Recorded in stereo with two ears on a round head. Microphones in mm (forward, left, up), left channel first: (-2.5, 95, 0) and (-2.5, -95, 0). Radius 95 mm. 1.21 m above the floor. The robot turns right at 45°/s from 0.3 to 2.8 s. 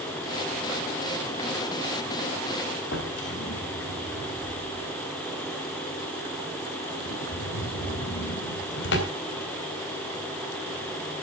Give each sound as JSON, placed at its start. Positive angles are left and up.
{"t": 2.9, "sound": "a drawer", "side_deg": 60, "distance_m": 3.5}